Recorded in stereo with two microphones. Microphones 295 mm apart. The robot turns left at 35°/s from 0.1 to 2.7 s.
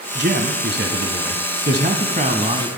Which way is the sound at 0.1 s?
60° right.